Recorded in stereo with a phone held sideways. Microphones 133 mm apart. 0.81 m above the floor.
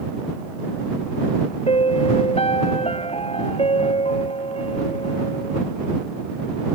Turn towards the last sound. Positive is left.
turn(degrees=50)  # may be behind; listen again after turning